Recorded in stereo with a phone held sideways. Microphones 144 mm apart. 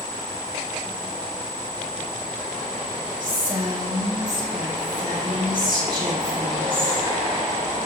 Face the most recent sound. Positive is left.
turn(degrees=-40)  # may be behind; listen again after turning